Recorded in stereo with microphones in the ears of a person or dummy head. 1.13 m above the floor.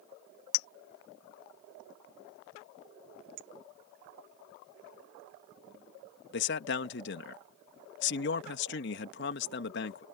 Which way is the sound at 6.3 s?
50° left (ahead or behind).